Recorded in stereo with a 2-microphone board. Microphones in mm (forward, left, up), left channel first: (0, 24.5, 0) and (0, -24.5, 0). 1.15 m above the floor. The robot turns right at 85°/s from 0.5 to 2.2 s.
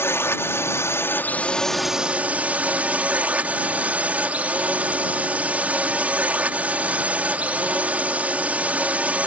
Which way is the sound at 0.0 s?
70° left.